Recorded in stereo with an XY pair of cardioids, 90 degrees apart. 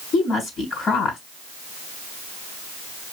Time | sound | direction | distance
0.1 | a woman speaking | 70° left | 4.5 m